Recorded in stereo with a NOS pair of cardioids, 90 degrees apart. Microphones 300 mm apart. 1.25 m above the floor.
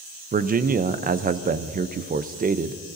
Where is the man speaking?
25° right, 0.6 m.